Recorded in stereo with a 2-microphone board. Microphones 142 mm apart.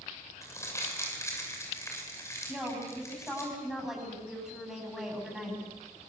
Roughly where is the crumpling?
Left.